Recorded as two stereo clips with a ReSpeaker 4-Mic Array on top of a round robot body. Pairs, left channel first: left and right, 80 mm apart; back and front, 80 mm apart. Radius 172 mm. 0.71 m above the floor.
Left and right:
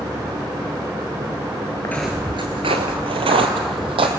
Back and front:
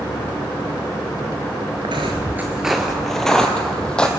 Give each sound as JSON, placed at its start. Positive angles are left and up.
{"t": 1.8, "sound": "footsteps", "azimuth_deg": 30, "distance_m": 0.7}